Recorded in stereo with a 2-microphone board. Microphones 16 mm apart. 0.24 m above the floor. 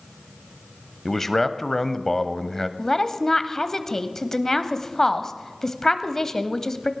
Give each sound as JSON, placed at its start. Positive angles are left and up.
{"t": 1.1, "sound": "a man speaking", "side_deg": 15, "distance_m": 0.9}
{"t": 2.8, "sound": "a woman speaking", "side_deg": 25, "distance_m": 1.0}